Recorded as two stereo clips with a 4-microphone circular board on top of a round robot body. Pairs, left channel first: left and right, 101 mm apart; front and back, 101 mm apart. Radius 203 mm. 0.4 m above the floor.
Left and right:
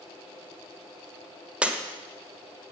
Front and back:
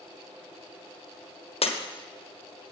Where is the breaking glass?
10° right, 1.5 m.